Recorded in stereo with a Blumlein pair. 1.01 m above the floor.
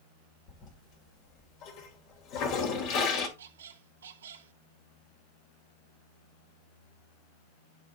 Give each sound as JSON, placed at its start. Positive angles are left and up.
{"t": 0.5, "sound": "a toilet flushing", "azimuth_deg": 40, "distance_m": 2.0}
{"t": 3.4, "sound": "a squeak", "azimuth_deg": -65, "distance_m": 0.9}